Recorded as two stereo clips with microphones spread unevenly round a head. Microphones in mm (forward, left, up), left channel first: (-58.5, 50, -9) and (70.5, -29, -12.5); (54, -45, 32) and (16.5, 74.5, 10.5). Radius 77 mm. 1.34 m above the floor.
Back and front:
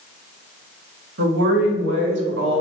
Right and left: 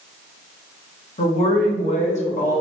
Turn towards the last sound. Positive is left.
turn(degrees=-45)